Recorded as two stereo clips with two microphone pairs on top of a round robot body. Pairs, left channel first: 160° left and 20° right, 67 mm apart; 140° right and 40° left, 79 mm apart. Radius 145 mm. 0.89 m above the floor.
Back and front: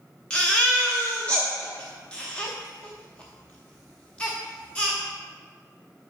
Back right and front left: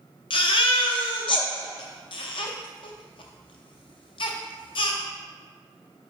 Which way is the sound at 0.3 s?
125° right.